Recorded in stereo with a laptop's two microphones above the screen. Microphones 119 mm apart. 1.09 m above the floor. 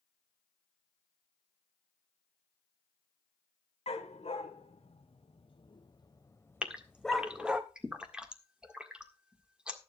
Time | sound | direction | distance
3.9 | a dog barking | 65° left (ahead or behind) | 1.9 m
6.6 | a gasp | 10° right (ahead or behind) | 1.7 m